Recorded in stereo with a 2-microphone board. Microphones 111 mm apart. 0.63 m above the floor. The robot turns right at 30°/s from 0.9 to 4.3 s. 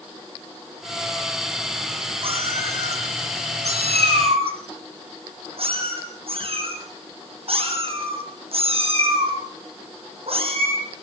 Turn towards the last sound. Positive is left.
turn(degrees=-60)  # may be behind; listen again after turning